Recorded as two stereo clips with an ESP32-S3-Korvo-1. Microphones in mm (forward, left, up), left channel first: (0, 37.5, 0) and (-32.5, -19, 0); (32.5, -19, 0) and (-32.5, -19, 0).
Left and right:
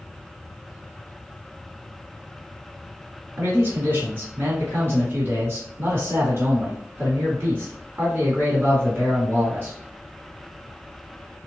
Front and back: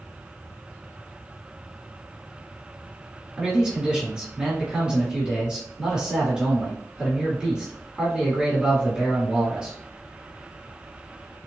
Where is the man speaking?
110° right, 1.5 m.